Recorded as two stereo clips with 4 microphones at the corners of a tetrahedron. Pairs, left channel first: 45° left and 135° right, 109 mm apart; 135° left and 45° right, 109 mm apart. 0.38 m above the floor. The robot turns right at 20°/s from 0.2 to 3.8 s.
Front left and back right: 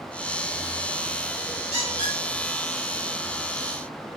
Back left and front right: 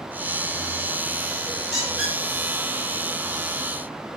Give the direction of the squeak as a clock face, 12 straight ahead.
4 o'clock.